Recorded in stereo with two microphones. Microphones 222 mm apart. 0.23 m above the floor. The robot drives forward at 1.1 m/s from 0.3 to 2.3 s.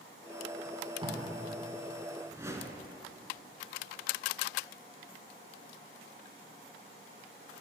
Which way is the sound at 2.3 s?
15° right (ahead or behind).